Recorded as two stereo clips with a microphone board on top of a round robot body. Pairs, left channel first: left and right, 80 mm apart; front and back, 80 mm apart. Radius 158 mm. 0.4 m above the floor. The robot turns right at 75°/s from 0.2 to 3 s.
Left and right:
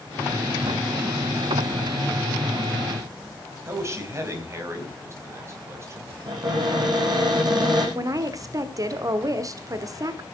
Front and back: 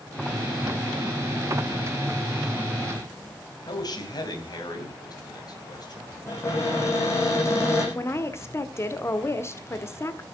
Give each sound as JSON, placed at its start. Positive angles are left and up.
{"t": 3.7, "sound": "a man speaking", "azimuth_deg": -35, "distance_m": 4.0}
{"t": 6.3, "sound": "a cupboard door", "azimuth_deg": -55, "distance_m": 7.5}
{"t": 8.0, "sound": "a woman speaking", "azimuth_deg": -50, "distance_m": 1.6}